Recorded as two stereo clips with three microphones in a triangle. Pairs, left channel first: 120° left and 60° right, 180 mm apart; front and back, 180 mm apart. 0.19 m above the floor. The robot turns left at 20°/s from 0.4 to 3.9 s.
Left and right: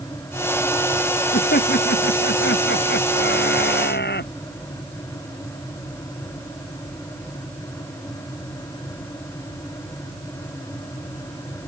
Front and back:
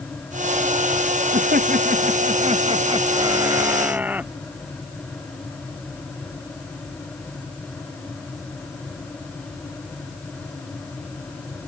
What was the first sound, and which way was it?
Laughter, 150° left.